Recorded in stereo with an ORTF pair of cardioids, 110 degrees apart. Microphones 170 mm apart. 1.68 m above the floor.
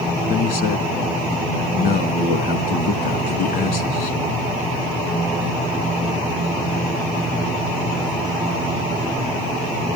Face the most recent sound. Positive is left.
turn(degrees=60)